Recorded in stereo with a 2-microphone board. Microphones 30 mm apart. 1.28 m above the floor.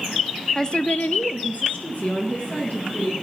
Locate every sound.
0.6 s a woman speaking: 20° left (ahead or behind), 0.7 m; by 3.1 s 45° left (ahead or behind), 3 m